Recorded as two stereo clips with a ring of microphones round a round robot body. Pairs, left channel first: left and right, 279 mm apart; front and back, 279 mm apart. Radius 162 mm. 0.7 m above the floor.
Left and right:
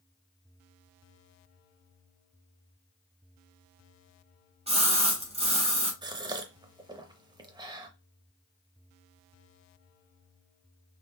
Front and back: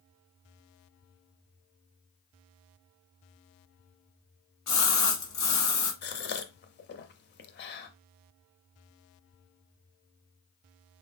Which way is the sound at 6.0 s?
25° right.